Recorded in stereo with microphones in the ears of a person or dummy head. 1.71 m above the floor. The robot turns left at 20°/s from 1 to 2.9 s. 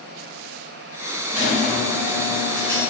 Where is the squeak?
160° right, 1.4 m; by 2.8 s 170° left, 1.4 m.